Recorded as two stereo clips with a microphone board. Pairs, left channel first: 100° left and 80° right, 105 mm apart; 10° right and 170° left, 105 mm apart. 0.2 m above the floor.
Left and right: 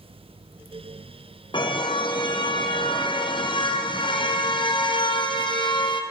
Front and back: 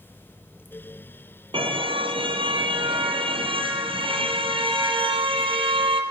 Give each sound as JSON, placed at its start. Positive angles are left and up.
{"t": 1.5, "sound": "a car horn", "azimuth_deg": 135, "distance_m": 3.0}